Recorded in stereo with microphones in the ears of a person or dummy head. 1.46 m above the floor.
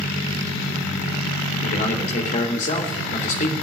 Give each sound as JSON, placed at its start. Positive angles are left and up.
{"t": 1.6, "sound": "a man speaking", "side_deg": 40, "distance_m": 3.5}